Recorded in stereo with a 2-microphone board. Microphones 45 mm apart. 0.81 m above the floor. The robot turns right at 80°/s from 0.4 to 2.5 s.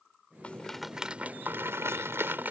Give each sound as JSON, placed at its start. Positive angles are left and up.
{"t": 0.4, "sound": "a rattle", "azimuth_deg": 150}